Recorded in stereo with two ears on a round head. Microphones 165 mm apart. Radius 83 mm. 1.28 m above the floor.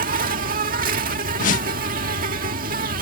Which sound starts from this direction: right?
An insect, at 0.0 s.